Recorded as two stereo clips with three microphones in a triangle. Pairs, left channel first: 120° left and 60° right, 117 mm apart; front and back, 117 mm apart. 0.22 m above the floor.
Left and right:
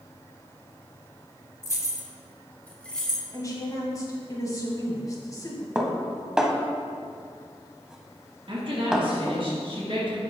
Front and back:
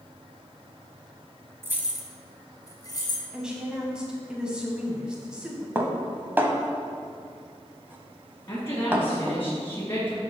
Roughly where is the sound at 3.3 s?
Left.